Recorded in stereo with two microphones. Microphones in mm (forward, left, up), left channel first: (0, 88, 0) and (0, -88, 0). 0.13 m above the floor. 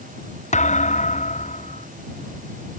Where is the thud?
40° left (ahead or behind).